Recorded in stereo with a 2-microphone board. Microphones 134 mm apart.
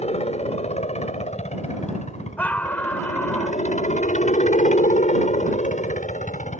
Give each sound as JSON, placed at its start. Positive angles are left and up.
{"t": 0.0, "sound": "a helicopter", "side_deg": 55}
{"t": 2.4, "sound": "a scream", "side_deg": 10}